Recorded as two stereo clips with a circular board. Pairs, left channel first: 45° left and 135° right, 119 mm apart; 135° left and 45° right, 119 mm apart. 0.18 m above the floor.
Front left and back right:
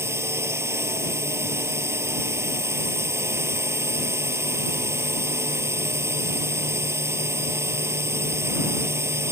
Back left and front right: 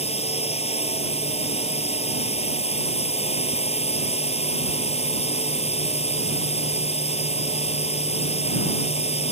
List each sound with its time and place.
0.0 s a drone: 160° left